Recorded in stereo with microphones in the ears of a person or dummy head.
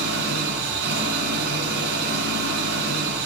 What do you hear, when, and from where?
0.0 s an engine running: 50° right (ahead or behind), 7 m